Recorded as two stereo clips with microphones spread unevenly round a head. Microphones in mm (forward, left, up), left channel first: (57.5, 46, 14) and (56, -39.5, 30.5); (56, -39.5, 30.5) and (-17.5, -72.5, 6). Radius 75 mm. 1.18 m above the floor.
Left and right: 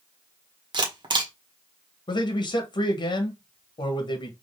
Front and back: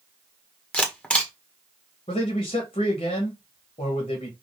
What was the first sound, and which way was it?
A camera shutter, 60° right.